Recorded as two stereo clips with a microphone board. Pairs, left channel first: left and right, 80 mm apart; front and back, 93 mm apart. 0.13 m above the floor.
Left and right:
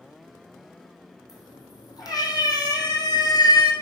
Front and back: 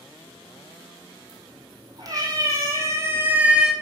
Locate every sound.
1.3 s a cat meowing: 135° left, 2.5 m; by 3.7 s 95° left, 0.7 m